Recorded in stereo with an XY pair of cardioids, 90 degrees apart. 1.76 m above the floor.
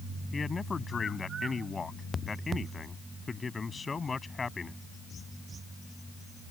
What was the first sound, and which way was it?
A man speaking, 35° left.